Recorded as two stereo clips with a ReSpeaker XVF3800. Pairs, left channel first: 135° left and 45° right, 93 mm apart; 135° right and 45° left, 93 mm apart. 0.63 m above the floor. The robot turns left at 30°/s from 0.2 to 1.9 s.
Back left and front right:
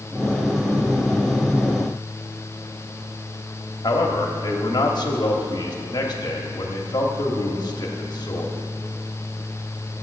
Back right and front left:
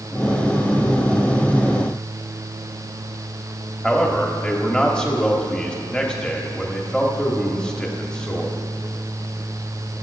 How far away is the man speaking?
About 1.3 m.